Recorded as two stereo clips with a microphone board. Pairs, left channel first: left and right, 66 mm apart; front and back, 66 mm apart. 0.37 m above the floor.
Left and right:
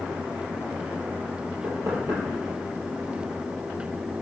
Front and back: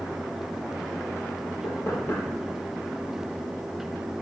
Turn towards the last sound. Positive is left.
turn(degrees=-50)